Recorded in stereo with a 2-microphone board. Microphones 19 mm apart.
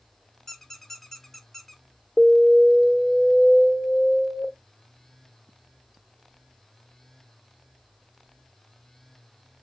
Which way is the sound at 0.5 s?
15° left (ahead or behind).